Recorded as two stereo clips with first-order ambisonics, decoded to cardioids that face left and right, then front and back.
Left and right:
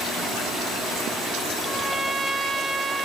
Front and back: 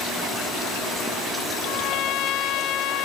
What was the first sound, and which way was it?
A trumpet, 10° right.